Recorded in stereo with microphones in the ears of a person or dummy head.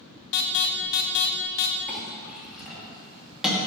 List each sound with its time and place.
0.3 s an alarm: 65° left (ahead or behind), 1.1 m
1.9 s a clink: centre (ahead or behind), 2.5 m